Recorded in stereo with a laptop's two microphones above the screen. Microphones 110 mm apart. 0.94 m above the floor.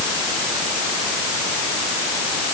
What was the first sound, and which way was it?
Only background noise.